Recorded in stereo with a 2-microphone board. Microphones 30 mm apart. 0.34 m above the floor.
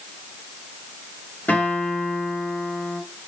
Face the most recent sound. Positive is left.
turn(degrees=75)  # may be behind; listen again after turning